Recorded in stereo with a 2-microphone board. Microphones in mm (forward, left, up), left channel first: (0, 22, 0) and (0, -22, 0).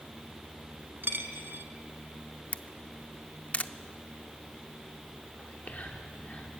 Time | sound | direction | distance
1.0 | a dropped coin | 55° right (ahead or behind) | 1.0 m
2.5 | a camera shutter | 30° left (ahead or behind) | 0.5 m
5.4 | whispering | 40° left (ahead or behind) | 1.1 m